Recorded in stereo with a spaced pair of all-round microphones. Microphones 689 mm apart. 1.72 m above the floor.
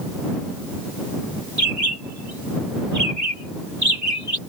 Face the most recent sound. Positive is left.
turn(degrees=-25)  # may be behind; listen again after turning